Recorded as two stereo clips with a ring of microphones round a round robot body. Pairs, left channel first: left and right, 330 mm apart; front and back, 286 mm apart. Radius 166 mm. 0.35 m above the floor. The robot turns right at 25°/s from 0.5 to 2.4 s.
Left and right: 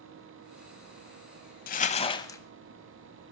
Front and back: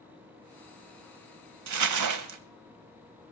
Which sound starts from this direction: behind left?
Crumpling, at 1.7 s.